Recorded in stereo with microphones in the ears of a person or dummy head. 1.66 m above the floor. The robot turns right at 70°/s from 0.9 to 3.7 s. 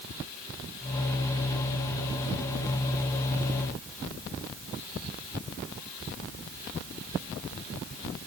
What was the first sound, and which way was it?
Only background noise.